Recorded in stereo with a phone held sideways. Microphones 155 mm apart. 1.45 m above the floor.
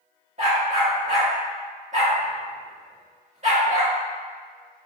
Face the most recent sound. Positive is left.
turn(degrees=-45)  # may be behind; listen again after turning